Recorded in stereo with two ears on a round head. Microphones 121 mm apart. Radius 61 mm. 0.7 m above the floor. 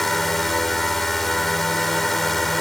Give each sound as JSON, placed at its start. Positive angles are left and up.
{"t": 0.0, "sound": "a drone", "side_deg": 0}